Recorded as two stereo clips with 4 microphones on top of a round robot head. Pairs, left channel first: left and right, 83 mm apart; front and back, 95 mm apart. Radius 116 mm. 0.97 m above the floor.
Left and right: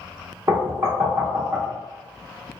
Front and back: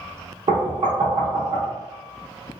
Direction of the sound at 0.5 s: 145° right.